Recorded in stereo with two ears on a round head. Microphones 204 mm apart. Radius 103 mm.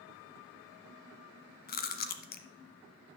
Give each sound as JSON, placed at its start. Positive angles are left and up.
{"t": 1.7, "sound": "chewing", "side_deg": 45, "distance_m": 1.0}